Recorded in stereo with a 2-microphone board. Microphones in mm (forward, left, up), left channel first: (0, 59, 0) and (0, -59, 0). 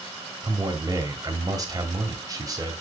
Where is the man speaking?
30° right (ahead or behind), 2 m.